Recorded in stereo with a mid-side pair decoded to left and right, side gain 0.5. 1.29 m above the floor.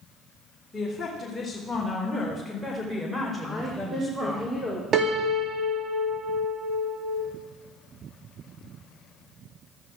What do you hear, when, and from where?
0.7 s a woman speaking: 20° left, 3.5 m; by 4.4 s 15° right, 5 m
3.4 s a woman speaking: 5° right, 4.5 m
4.9 s a piano: 45° right, 1.8 m